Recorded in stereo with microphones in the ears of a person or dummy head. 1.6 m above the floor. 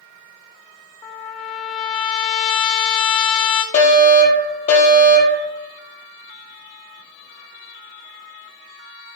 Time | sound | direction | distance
1.0 | a trumpet | 15° left (ahead or behind) | 0.7 m
3.7 | a fire alarm | 45° left (ahead or behind) | 3 m